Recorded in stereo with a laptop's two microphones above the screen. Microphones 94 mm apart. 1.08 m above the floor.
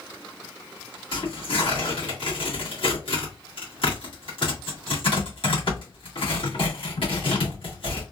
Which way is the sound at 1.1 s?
70° left (ahead or behind).